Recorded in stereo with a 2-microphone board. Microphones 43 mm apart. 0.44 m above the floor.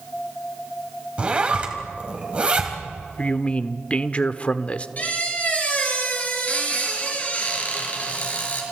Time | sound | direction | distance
1.2 | a zipper | 25° right (ahead or behind) | 3 m
3.2 | a man speaking | 30° left (ahead or behind) | 0.9 m
5.0 | a squeak | 40° left (ahead or behind) | 5 m